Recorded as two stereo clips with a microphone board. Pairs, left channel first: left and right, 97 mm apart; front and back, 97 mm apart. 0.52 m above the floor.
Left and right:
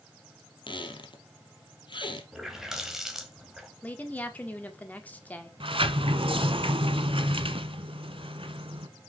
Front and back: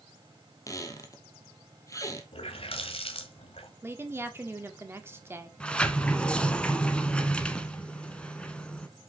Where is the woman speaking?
145° left, 1.4 m.